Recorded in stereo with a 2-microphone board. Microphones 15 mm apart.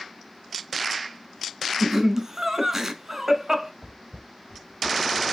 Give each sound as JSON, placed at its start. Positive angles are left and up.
{"t": 1.8, "sound": "laughter", "side_deg": -25, "distance_m": 1.1}
{"t": 3.8, "sound": "footsteps", "side_deg": -35, "distance_m": 1.2}